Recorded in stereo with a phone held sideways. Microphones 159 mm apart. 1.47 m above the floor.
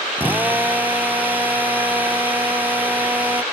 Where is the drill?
10° right (ahead or behind).